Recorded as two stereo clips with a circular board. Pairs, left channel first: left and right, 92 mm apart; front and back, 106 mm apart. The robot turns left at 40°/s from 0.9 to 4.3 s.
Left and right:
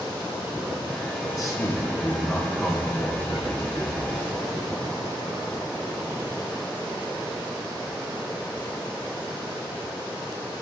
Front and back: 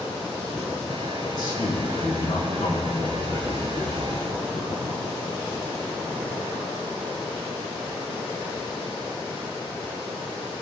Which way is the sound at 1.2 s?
50° left.